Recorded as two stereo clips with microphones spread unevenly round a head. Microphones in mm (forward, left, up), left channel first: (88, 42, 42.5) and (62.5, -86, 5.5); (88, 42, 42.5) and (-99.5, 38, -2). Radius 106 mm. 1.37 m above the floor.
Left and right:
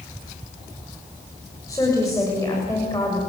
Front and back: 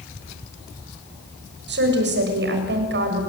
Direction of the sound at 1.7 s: 155° left.